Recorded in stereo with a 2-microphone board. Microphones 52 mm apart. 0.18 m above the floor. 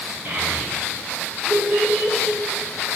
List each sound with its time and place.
0.2 s a child speaking: 35° right (ahead or behind), 2 m; by 2.4 s 50° right (ahead or behind), 1.7 m